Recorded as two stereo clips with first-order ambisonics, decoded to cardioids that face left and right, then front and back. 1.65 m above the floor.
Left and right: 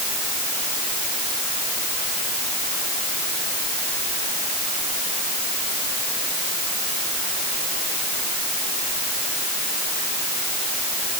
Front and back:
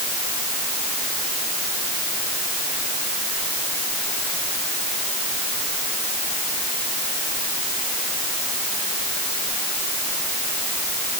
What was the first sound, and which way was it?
Only background noise.